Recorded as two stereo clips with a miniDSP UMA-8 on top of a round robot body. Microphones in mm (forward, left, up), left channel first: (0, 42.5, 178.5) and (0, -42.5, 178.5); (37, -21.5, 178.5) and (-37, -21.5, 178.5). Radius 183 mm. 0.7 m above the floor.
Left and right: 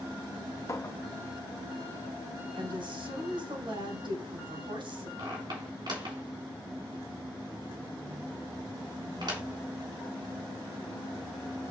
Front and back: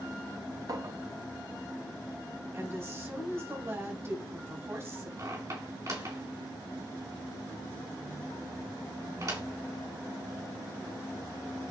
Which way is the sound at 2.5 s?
125° right.